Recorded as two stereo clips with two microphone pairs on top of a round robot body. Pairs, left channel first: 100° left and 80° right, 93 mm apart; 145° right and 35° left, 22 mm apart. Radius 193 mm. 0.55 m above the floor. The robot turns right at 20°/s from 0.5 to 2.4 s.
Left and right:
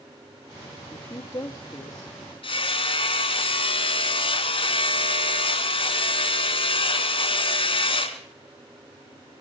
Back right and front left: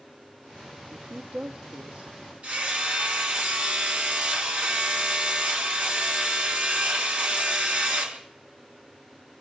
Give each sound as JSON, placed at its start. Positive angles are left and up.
{"t": 0.9, "sound": "a woman speaking", "azimuth_deg": 40, "distance_m": 1.7}
{"t": 2.4, "sound": "hammering", "azimuth_deg": 70, "distance_m": 3.0}